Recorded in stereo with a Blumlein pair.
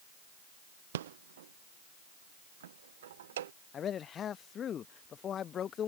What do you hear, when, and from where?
0.9 s a rattle: 60° right
3.7 s a man speaking: 25° left